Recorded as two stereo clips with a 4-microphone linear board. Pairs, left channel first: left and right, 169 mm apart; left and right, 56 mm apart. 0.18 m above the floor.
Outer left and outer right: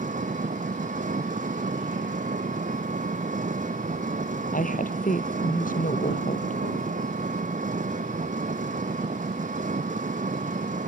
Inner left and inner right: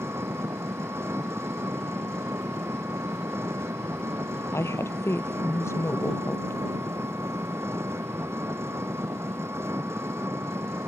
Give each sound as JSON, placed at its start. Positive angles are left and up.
{"t": 0.0, "sound": "an engine running", "side_deg": -50}
{"t": 4.5, "sound": "a woman speaking", "side_deg": 50}